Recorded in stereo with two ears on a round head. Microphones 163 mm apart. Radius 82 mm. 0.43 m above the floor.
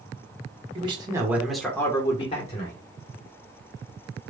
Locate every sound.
0.8 s a man speaking: 30° right (ahead or behind), 1.2 m; by 2.8 s 45° left (ahead or behind), 1.4 m